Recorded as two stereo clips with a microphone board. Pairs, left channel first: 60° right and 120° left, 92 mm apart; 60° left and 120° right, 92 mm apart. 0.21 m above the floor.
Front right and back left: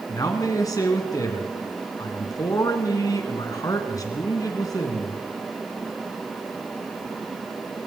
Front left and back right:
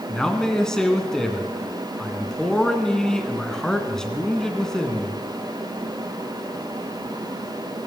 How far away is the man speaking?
About 2 m.